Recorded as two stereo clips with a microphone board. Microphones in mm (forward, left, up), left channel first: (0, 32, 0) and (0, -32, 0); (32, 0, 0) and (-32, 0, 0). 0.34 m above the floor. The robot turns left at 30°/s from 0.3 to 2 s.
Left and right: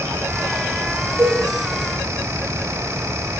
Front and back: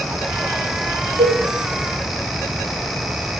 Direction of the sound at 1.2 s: 170° right.